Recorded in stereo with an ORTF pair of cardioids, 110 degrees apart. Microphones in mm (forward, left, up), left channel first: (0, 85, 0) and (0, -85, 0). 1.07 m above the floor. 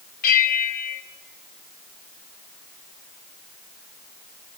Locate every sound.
0.2 s a bell: 60° left, 3 m